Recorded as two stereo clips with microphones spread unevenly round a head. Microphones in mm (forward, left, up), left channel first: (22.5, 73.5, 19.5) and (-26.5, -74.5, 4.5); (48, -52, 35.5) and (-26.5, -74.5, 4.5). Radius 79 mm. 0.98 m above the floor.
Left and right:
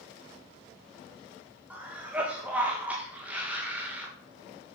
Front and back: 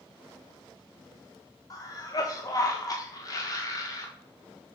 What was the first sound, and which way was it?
A cough, 35° right.